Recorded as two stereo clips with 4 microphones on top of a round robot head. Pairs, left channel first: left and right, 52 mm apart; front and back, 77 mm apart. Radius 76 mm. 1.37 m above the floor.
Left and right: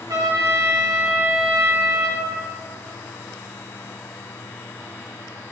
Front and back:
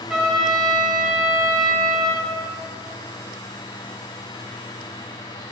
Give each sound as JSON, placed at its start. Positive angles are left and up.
{"t": 0.1, "sound": "a trumpet", "azimuth_deg": -95, "distance_m": 1.4}